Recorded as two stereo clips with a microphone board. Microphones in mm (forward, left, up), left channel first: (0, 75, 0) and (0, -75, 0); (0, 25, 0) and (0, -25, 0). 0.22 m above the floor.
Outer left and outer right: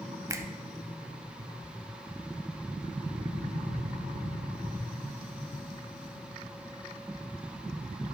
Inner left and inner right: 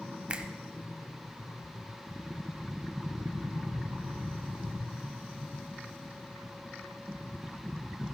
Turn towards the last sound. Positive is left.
turn(degrees=-20)  # may be behind; listen again after turning